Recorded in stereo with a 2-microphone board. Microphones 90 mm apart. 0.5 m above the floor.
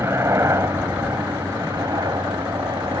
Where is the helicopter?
30° right (ahead or behind); by 3.0 s 50° right (ahead or behind).